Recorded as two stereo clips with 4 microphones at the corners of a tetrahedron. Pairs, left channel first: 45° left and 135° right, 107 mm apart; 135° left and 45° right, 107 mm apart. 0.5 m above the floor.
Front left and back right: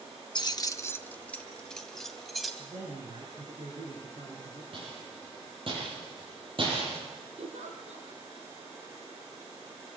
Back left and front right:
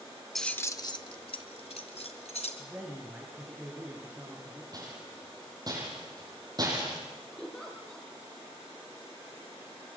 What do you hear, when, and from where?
0.3 s keys jangling: 45° left, 0.8 m; by 2.5 s 135° left, 3 m
2.6 s a man speaking: 125° right, 6 m
4.7 s a rattle: 95° right, 8.5 m
7.4 s a giggle: 140° right, 4.5 m